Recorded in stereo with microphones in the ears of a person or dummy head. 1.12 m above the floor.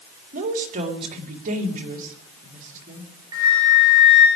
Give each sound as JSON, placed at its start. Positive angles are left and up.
{"t": 0.3, "sound": "a woman speaking", "side_deg": -50, "distance_m": 3.0}
{"t": 3.3, "sound": "a flute", "side_deg": -20, "distance_m": 8.5}